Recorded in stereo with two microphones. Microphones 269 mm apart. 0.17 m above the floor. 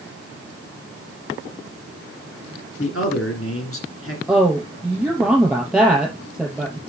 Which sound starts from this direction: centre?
A woman speaking, at 4.3 s.